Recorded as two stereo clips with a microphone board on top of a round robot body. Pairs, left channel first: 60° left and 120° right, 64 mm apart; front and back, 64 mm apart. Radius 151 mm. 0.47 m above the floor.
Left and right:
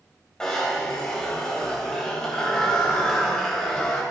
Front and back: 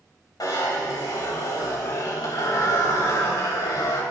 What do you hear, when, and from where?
0.4 s a zipper: 20° right, 3 m